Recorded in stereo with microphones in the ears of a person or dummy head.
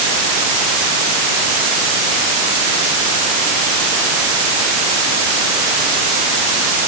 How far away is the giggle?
No giggle in this recording.